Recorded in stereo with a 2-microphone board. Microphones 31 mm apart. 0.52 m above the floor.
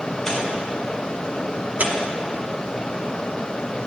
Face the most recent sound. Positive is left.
turn(degrees=-60)  # may be behind; listen again after turning